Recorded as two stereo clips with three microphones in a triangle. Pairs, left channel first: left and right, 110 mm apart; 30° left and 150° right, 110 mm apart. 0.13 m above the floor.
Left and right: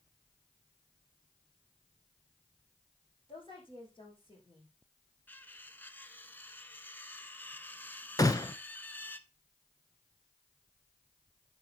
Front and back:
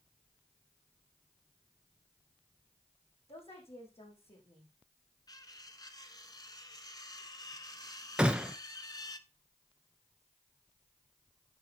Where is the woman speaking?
50° left, 6 m.